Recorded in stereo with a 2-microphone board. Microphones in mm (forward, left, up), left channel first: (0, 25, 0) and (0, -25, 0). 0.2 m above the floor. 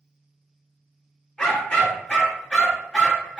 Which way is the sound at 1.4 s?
20° left (ahead or behind).